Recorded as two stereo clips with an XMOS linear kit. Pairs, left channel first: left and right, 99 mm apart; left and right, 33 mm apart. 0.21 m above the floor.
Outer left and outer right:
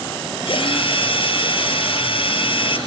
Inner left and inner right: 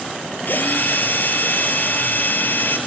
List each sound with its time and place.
0.5 s a drill: 65° left (ahead or behind), 4 m